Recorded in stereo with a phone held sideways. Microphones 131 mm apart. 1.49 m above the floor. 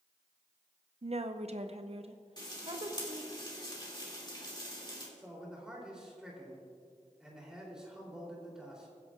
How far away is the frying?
About 2.5 m.